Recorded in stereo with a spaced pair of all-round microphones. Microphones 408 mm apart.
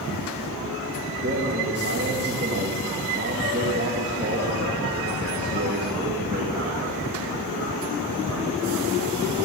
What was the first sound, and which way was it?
A man speaking, 25° right (ahead or behind).